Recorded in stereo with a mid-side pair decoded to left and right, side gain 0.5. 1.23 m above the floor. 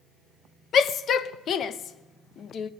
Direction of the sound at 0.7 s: 55° left.